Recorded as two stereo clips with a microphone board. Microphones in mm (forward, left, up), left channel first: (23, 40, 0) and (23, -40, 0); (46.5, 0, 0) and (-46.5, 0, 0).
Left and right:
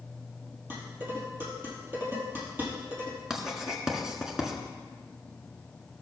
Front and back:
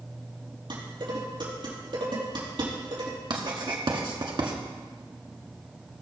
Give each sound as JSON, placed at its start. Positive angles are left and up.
{"t": 0.7, "sound": "dishes clattering", "azimuth_deg": -150, "distance_m": 4.0}
{"t": 3.3, "sound": "writing", "azimuth_deg": -170, "distance_m": 1.4}